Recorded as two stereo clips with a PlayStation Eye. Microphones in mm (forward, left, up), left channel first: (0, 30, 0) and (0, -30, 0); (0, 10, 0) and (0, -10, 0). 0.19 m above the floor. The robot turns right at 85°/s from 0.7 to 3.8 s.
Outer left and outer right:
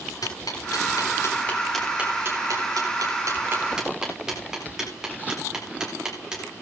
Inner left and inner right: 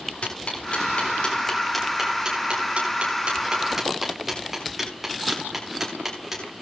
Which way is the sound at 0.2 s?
85° left.